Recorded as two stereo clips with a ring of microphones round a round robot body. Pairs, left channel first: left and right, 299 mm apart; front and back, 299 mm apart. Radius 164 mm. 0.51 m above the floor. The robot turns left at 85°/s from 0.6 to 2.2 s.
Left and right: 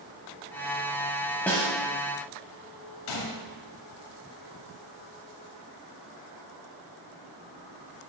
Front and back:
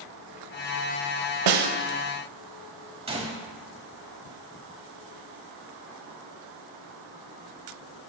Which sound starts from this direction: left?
A gunshot, at 3.1 s.